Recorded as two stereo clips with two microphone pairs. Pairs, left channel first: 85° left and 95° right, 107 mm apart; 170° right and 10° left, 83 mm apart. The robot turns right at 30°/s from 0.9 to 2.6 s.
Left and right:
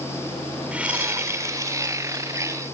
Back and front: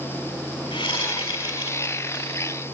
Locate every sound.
0.7 s a whoosh: 175° right, 2 m; by 2.2 s 135° right, 2 m